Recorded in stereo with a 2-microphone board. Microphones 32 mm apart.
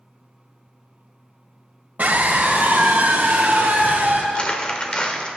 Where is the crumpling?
30° left (ahead or behind), 1.4 m.